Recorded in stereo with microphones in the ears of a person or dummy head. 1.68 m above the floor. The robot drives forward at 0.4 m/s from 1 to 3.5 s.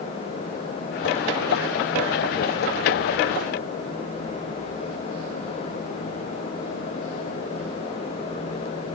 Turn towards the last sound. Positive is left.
No sound to turn to.